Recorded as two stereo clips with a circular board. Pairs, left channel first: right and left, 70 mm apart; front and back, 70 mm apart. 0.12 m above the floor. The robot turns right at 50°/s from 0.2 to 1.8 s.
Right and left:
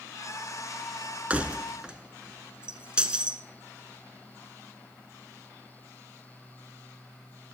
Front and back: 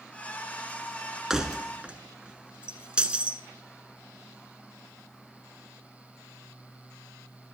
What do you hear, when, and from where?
1.3 s keys jangling: 110° left, 0.9 m; by 3.4 s 135° left, 0.9 m